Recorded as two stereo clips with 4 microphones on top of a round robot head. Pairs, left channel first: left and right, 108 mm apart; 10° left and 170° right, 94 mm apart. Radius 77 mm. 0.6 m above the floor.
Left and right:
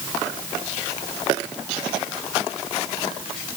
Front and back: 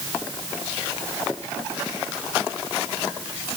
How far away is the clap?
I don't hear a clap.